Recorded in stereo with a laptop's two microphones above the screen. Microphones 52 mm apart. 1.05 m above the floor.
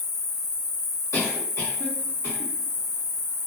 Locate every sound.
0.0 s an insect: 75° left (ahead or behind), 0.9 m
1.1 s a cough: 60° left (ahead or behind), 1.7 m